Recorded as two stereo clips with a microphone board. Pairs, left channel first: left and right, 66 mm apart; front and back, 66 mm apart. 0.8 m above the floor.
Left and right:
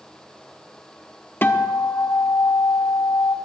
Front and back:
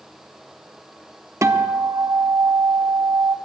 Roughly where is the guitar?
Behind left.